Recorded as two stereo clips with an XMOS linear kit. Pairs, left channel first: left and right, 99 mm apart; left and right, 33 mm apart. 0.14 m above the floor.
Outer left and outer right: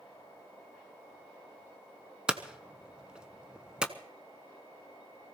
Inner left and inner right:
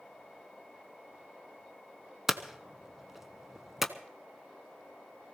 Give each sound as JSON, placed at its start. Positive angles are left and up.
{"t": 2.3, "sound": "hammering", "side_deg": -10, "distance_m": 0.8}